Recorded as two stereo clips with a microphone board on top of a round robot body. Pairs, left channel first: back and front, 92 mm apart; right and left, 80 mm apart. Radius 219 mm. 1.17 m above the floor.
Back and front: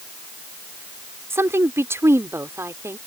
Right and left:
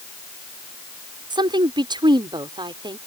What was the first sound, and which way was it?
A woman speaking, 65° left.